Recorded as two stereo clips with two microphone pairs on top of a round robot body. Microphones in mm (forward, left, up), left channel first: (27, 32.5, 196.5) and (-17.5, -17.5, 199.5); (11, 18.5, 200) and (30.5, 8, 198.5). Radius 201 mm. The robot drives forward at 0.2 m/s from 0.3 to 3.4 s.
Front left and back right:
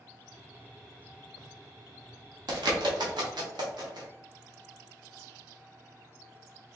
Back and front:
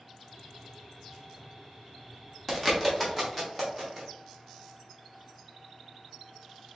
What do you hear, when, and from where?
2.5 s a bird: 125° right, 1.0 m; by 4.1 s 135° right, 1.1 m